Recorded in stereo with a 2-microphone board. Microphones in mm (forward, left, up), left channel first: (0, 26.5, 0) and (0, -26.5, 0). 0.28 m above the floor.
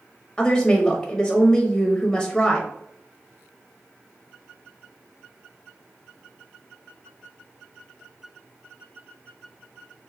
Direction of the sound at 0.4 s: 15° left (ahead or behind).